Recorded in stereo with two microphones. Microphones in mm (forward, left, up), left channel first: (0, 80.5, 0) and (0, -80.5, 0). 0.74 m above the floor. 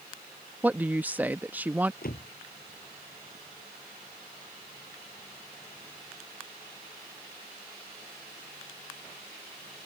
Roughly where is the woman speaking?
Centre.